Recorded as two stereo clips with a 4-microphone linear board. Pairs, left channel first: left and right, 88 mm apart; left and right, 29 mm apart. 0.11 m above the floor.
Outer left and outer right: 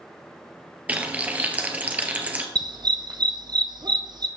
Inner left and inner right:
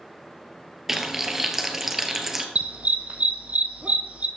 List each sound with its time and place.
0.9 s frying: 20° right (ahead or behind), 1.2 m
2.5 s a dog barking: 55° right (ahead or behind), 1.1 m